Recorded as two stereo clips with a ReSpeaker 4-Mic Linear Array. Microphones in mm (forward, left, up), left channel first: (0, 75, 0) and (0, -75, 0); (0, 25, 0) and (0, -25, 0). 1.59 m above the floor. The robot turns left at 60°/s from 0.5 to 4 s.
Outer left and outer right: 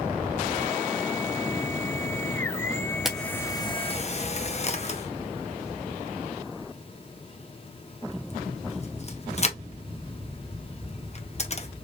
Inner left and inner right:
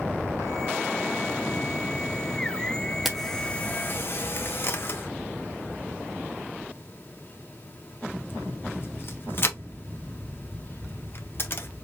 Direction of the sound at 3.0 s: 5° right (ahead or behind).